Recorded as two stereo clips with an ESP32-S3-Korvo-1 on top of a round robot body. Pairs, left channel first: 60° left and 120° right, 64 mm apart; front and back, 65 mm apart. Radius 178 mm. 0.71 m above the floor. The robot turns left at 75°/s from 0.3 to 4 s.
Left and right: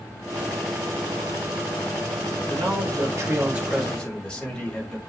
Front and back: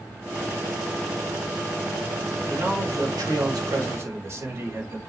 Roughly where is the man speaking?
Right.